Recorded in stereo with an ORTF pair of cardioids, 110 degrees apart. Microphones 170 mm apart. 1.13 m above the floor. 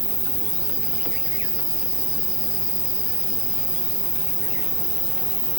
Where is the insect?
15° right, 0.9 m.